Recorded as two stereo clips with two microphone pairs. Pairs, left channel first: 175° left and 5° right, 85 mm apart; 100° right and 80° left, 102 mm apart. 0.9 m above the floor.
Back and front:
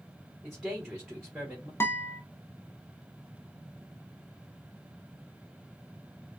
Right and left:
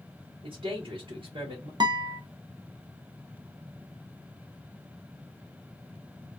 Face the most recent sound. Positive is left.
turn(degrees=115)